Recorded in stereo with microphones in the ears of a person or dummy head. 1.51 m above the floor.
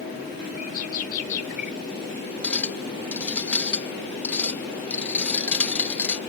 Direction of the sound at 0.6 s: 50° left (ahead or behind).